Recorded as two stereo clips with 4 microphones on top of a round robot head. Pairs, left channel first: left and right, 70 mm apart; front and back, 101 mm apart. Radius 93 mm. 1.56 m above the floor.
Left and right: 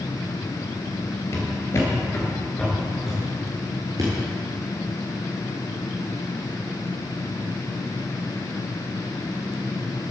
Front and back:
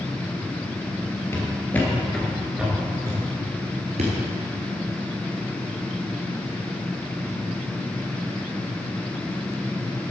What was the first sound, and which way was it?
Footsteps, 60° left.